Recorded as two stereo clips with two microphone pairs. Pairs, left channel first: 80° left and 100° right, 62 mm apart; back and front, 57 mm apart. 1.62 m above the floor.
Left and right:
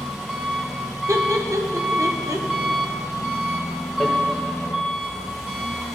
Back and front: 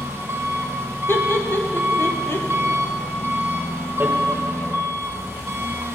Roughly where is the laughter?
Behind right.